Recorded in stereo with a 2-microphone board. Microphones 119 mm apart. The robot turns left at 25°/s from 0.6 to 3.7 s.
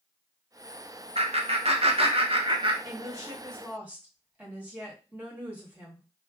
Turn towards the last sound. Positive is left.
turn(degrees=-15)  # may be behind; listen again after turning